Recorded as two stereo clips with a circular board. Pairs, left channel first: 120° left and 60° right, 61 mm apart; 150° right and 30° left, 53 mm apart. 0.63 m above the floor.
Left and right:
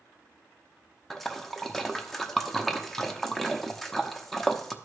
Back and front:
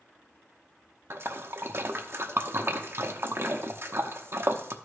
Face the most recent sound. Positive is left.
turn(degrees=35)